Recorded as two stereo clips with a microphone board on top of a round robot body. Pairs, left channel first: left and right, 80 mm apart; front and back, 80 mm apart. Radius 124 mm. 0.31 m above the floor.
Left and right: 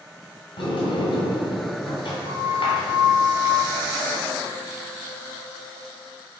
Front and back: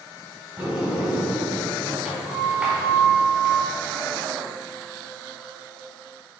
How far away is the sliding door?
About 1.9 m.